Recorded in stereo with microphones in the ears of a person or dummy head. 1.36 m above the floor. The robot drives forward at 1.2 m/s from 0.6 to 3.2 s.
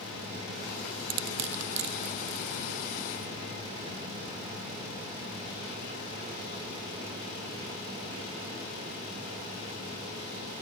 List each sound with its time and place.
1.1 s crushing: 75° right (ahead or behind); by 2.9 s 65° right (ahead or behind)